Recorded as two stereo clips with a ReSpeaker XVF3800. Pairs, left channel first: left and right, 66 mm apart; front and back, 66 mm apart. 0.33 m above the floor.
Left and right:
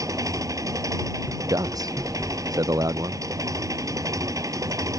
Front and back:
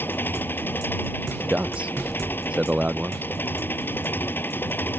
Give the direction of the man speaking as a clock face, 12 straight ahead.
4 o'clock.